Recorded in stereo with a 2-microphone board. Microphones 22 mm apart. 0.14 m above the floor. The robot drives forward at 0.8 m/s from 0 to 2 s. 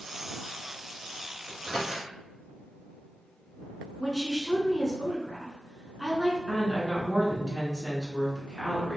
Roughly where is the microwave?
Right.